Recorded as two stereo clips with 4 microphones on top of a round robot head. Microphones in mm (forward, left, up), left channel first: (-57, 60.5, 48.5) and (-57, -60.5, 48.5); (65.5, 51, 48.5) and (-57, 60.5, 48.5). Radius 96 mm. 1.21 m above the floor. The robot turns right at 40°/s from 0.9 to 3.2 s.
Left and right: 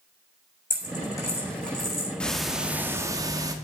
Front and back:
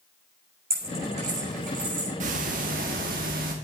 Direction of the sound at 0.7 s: 140° left.